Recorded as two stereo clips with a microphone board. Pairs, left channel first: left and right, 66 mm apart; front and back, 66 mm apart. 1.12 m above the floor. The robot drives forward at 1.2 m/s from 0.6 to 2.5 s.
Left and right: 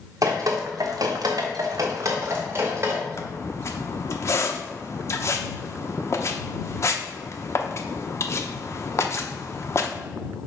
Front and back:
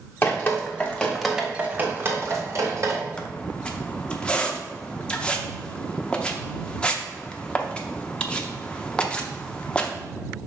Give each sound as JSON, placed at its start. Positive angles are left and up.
{"t": 0.2, "sound": "dripping", "azimuth_deg": -60, "distance_m": 1.5}
{"t": 3.2, "sound": "a squeak", "azimuth_deg": 70, "distance_m": 0.8}